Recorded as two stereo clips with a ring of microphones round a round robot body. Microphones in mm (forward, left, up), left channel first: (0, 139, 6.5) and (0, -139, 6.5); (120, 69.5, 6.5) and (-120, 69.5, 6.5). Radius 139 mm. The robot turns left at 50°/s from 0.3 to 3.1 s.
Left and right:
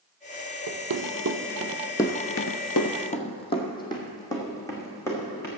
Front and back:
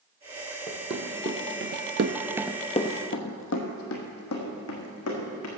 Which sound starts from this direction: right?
Running footsteps, at 0.7 s.